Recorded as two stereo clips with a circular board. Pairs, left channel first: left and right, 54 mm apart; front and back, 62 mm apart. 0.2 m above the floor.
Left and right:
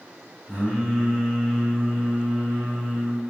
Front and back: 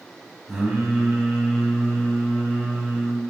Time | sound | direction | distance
0.5 | singing | 115° right | 1.7 m